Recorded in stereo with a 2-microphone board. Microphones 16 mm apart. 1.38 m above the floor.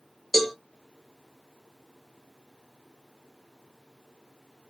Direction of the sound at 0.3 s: 5° left (ahead or behind).